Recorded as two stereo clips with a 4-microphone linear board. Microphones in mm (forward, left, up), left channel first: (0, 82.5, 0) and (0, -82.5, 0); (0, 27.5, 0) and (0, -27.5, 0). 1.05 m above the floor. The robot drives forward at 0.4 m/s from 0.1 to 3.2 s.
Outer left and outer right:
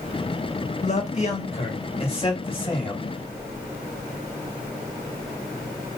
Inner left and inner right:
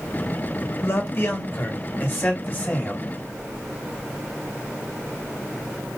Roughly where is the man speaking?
Left.